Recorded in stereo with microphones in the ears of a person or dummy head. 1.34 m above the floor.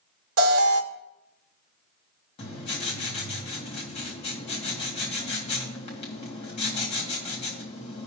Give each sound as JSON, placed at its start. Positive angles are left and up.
{"t": 0.4, "sound": "an alarm", "side_deg": -70, "distance_m": 1.1}
{"t": 2.4, "sound": "writing", "side_deg": 30, "distance_m": 1.8}